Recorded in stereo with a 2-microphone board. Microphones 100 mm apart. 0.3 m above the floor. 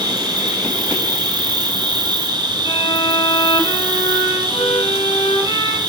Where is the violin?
65° left (ahead or behind), 1.3 m.